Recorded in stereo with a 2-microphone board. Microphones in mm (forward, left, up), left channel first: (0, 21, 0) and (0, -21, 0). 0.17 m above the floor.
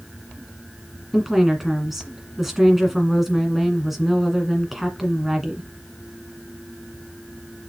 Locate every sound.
1.1 s a woman speaking: 5° right (ahead or behind), 1.9 m